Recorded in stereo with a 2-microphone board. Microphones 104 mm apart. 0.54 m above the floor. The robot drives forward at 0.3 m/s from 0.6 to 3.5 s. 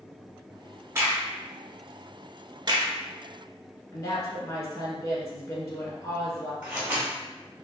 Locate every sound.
0.9 s a crack: 25° right (ahead or behind), 0.8 m; by 2.9 s 45° right (ahead or behind), 0.5 m
3.9 s a woman speaking: 40° left (ahead or behind), 1.2 m
6.6 s scissors: 10° right (ahead or behind), 1.6 m